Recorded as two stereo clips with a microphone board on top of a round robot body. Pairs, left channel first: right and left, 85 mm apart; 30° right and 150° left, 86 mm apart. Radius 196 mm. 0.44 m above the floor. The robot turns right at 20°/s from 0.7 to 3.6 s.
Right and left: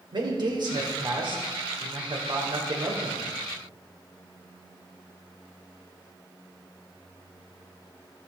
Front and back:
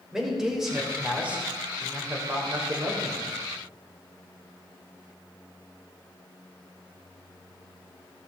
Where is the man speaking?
65° left, 3 m; by 3.3 s 120° left, 3 m.